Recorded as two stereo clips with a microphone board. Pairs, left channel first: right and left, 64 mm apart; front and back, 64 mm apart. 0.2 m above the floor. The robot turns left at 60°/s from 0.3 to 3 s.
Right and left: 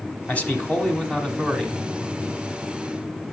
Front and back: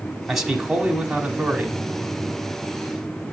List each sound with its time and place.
0.3 s a man speaking: 100° right, 1.0 m; by 1.8 s 170° left, 1.0 m